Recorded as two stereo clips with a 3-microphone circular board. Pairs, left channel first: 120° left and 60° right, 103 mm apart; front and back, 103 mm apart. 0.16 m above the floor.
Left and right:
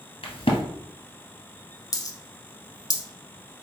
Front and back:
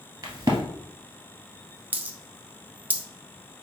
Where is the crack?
135° left, 1.6 m.